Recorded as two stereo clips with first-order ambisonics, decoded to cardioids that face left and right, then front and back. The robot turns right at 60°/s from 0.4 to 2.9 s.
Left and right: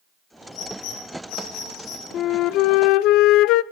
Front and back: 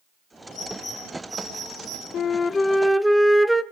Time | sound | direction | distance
0.5 | a bird | 50° left | 9.5 m
2.1 | a flute | 50° left | 0.6 m